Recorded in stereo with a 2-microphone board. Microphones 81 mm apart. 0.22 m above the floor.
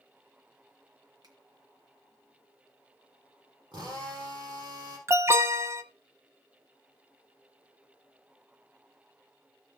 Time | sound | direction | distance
1.2 | a finger snap | 55° right (ahead or behind) | 2.5 m
3.7 | a drill | 65° right (ahead or behind) | 5 m
5.1 | an alarm | 35° right (ahead or behind) | 0.9 m